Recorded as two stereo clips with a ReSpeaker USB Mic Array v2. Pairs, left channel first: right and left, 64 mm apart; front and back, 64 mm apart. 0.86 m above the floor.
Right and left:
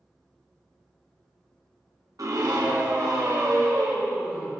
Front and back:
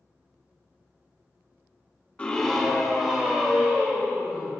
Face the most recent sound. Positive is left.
turn(degrees=105)